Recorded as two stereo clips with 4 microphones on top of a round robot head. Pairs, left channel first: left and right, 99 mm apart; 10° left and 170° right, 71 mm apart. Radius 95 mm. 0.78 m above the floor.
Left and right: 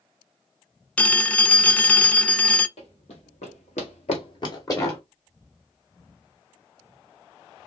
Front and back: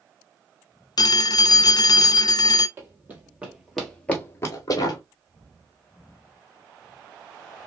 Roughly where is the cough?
I don't hear a cough.